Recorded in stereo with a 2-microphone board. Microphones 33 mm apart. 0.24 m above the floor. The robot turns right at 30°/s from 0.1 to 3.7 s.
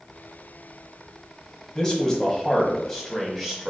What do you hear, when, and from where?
1.8 s a man speaking: 135° left, 1.1 m; by 3.7 s 170° right, 1.1 m